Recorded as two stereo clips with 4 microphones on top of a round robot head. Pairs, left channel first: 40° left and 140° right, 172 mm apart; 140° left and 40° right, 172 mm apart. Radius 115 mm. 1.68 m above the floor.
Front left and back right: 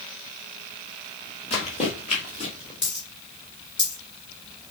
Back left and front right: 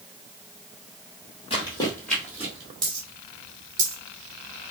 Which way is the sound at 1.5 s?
90° left.